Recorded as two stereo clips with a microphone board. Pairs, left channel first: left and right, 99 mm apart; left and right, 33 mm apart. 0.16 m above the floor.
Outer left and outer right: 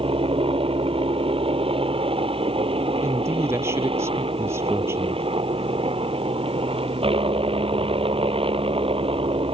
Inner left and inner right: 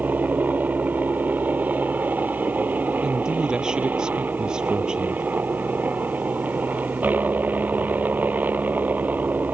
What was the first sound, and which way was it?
A helicopter, 70° right (ahead or behind).